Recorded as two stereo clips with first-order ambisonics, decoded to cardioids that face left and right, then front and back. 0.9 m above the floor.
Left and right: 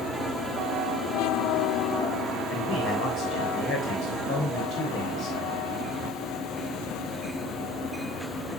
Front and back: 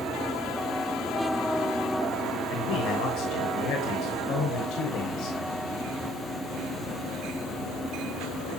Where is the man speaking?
40° left, 3.5 m.